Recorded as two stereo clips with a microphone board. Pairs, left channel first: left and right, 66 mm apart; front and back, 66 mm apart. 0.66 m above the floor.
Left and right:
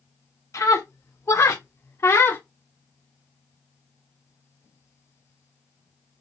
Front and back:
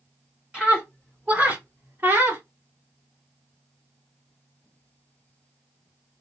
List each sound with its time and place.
0.5 s a scream: 110° left, 2 m; by 2.4 s 135° left, 1.1 m